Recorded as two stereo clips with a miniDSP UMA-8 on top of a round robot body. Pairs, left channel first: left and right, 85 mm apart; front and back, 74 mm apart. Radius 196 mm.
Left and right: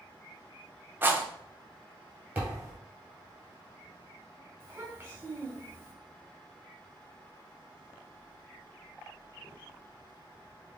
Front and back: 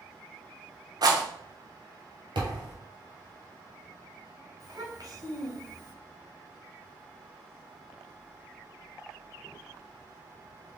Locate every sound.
1.0 s a rattle: 155° right, 1.0 m
2.4 s a thud: 165° right, 1.8 m
4.6 s a child speaking: 155° right, 1.8 m